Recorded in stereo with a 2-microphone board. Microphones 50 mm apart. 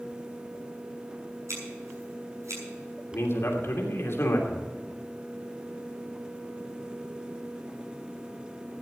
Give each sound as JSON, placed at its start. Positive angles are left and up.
{"t": 1.5, "sound": "scissors", "side_deg": -85, "distance_m": 7.0}
{"t": 3.1, "sound": "a man speaking", "side_deg": 60, "distance_m": 2.5}